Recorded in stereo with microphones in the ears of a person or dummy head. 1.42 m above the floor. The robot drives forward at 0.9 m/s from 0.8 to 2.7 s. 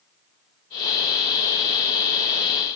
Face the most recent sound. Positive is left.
No sound to turn to.